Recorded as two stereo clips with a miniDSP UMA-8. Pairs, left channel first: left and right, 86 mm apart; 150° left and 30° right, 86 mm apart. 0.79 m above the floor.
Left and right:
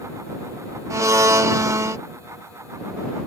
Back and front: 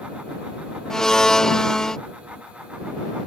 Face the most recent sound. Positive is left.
turn(degrees=-130)